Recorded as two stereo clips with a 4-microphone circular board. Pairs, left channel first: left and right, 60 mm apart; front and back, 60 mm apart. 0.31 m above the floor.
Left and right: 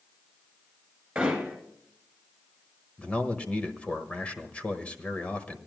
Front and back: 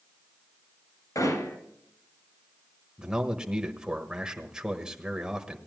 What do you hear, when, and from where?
1.1 s hammering: 10° right, 3 m
3.0 s a man speaking: 120° left, 1.2 m